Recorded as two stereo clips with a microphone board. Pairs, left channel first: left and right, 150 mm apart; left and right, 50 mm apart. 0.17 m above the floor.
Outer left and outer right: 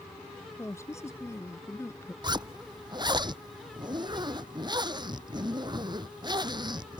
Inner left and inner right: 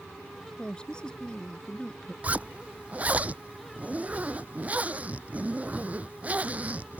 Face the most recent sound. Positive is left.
turn(degrees=-25)  # may be behind; listen again after turning